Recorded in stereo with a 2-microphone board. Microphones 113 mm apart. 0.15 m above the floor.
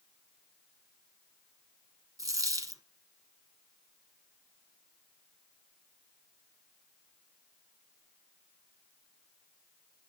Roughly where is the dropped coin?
Right.